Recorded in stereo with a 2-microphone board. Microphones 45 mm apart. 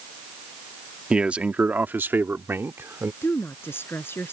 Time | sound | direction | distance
1.1 | a man speaking | 20° right (ahead or behind) | ?
3.2 | a woman speaking | 60° left (ahead or behind) | ?